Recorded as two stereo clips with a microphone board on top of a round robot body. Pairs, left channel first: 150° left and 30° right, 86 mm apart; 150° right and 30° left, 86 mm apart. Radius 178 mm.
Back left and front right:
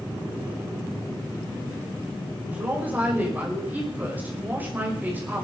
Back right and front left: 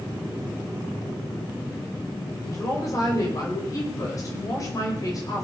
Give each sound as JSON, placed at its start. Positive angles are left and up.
{"t": 2.5, "sound": "a woman speaking", "azimuth_deg": -100, "distance_m": 4.5}